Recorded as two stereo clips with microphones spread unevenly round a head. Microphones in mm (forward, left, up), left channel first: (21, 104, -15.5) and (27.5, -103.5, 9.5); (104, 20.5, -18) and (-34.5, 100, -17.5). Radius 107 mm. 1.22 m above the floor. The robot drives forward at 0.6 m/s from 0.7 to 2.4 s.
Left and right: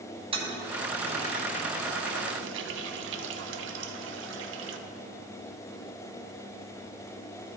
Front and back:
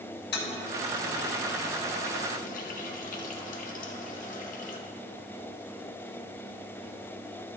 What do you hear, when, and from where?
0.3 s a toilet flushing: 25° right, 1.3 m; by 4.8 s 70° right, 0.6 m